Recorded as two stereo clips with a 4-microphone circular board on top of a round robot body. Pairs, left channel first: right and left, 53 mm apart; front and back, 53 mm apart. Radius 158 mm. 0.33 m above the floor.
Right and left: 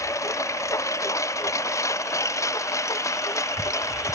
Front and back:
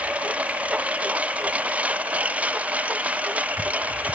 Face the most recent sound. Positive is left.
turn(degrees=-115)